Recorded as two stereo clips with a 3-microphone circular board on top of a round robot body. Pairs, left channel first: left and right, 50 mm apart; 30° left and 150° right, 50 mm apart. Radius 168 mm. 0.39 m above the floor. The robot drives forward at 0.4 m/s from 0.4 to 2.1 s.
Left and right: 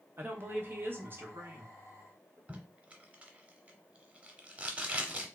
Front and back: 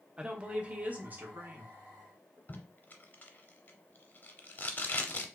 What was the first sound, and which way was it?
A woman speaking, 90° right.